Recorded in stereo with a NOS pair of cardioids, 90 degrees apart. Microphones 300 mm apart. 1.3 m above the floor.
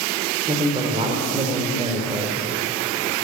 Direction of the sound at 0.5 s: 20° right.